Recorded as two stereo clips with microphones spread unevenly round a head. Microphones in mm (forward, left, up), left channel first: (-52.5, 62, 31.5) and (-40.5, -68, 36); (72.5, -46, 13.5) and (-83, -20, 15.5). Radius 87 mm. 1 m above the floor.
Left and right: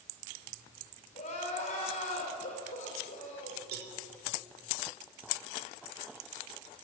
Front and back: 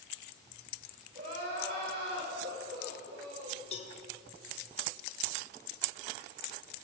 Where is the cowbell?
60° right, 1.7 m.